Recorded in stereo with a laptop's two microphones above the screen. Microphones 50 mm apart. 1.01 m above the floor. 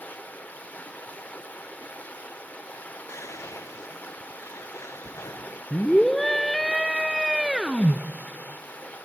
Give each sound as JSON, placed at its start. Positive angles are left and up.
{"t": 0.0, "sound": "running water", "side_deg": 30, "distance_m": 1.8}
{"t": 3.1, "sound": "whispering", "side_deg": 80, "distance_m": 0.7}
{"t": 5.7, "sound": "a scream", "side_deg": 5, "distance_m": 0.8}